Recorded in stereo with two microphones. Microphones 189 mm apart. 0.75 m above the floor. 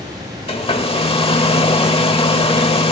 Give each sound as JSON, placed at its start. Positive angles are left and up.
{"t": 0.5, "sound": "a hair dryer", "side_deg": 30, "distance_m": 1.1}